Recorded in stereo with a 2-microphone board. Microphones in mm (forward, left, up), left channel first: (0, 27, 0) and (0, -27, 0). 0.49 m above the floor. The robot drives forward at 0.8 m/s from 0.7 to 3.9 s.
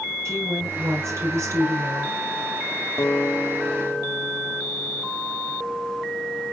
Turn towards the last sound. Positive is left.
turn(degrees=30)  # may be behind; listen again after turning